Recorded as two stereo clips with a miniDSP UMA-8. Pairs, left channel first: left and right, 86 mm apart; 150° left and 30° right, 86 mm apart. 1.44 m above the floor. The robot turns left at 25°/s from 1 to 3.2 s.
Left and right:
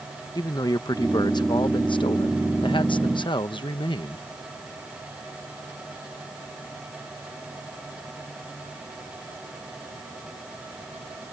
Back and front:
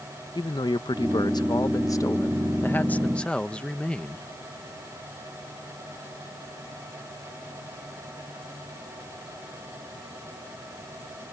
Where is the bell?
I don't hear a bell.